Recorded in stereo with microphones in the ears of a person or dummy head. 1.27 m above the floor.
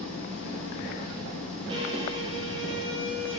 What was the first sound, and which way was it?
An engine running, 5° left (ahead or behind).